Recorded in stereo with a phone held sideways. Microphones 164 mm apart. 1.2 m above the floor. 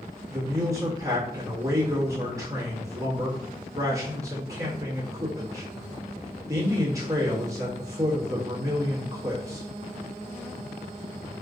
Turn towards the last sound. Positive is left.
turn(degrees=-20)  # may be behind; listen again after turning